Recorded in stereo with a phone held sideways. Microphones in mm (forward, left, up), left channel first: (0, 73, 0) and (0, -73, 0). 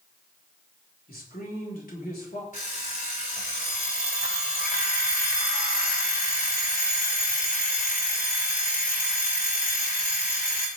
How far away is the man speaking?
About 5 m.